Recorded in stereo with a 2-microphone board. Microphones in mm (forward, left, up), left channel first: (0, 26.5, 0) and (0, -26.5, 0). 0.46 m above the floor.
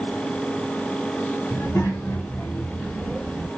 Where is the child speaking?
60° left (ahead or behind), 1.6 m; by 3.5 s 15° left (ahead or behind), 1.1 m.